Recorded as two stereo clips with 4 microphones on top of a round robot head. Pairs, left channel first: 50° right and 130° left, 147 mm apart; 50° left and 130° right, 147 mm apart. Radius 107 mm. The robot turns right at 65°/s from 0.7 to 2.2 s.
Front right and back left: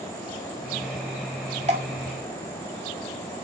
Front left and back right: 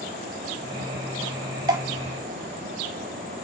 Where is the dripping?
165° left, 1.3 m; by 1.8 s 175° left, 1.3 m.